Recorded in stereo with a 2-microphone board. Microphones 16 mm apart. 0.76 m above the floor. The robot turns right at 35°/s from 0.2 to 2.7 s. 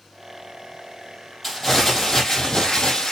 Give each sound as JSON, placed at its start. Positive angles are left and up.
{"t": 1.4, "sound": "crumpling", "azimuth_deg": 0, "distance_m": 6.5}